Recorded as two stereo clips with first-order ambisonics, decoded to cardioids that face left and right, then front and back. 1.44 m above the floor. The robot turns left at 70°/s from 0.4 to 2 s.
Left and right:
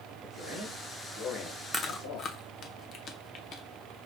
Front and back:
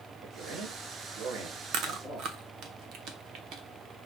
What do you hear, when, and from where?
0.2 s a man speaking: 140° right, 2 m; by 2.3 s 110° left, 2 m
1.7 s chewing: 160° left, 0.7 m; by 3.6 s 140° left, 0.7 m